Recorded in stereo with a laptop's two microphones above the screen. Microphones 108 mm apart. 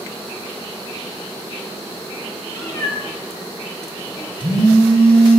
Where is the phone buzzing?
65° right (ahead or behind), 3 m.